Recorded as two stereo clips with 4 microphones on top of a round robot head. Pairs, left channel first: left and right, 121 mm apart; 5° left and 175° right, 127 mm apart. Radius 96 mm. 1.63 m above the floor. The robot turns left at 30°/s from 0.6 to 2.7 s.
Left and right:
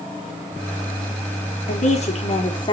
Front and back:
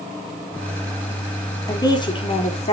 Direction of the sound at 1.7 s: 70° left.